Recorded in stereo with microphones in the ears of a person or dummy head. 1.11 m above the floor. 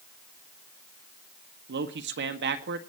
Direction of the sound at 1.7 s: 55° right (ahead or behind).